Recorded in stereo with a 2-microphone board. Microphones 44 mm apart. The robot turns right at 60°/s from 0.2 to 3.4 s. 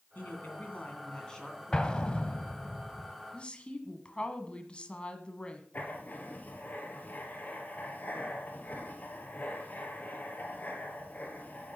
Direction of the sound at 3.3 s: 25° left (ahead or behind).